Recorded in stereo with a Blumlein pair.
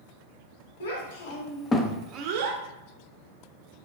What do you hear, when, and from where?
0.8 s a child speaking: 55° left, 1.3 m; by 2.6 s 60° right, 0.8 m